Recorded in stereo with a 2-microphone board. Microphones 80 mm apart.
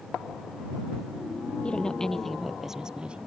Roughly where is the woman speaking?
Centre.